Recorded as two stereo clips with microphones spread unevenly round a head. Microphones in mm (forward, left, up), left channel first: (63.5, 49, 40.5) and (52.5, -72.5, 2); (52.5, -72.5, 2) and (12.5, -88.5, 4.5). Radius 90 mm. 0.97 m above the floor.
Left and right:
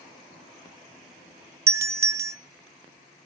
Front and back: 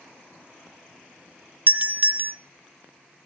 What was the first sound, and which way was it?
A doorbell, 125° right.